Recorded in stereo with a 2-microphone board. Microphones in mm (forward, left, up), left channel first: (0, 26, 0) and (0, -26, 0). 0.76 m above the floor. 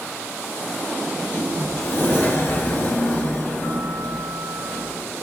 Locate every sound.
1.1 s a sliding door: 40° left (ahead or behind), 0.7 m